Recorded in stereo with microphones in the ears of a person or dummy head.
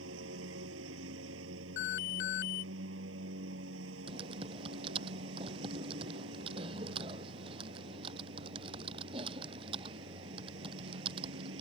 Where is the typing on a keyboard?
30° right (ahead or behind).